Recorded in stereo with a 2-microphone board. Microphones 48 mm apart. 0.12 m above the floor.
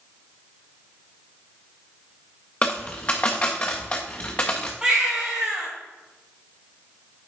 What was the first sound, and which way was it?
A dropped coin, 25° left (ahead or behind).